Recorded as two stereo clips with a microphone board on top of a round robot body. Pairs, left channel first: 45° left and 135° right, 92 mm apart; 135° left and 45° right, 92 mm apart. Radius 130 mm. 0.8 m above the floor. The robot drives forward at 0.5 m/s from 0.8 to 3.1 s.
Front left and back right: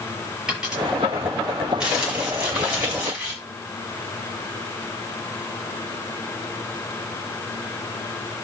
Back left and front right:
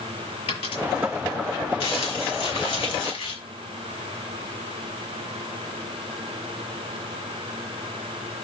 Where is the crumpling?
140° left, 5 m; by 3.4 s 145° left, 5.5 m.